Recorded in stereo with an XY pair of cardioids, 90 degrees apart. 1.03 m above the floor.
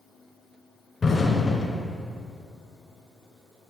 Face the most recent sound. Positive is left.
turn(degrees=40)